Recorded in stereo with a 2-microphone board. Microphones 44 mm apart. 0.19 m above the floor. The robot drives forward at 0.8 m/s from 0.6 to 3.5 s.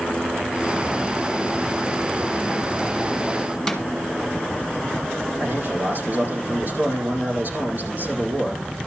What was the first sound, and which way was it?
A snare drum, 5° left (ahead or behind).